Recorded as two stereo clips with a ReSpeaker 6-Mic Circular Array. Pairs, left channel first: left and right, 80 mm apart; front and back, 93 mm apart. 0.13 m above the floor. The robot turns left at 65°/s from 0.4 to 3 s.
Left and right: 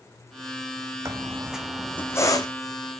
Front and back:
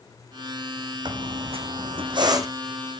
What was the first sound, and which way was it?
A squeak, 140° right.